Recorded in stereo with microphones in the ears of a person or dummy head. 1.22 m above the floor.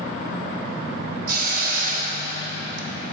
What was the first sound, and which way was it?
A hiss, 50° right (ahead or behind).